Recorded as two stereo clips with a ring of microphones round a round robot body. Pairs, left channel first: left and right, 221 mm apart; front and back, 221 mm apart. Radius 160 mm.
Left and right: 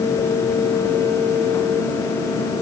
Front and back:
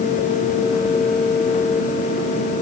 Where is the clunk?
I don't hear a clunk.